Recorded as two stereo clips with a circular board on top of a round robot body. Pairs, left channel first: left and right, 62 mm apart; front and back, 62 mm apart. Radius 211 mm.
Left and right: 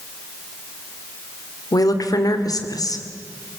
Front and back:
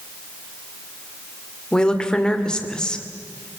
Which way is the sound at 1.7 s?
75° left.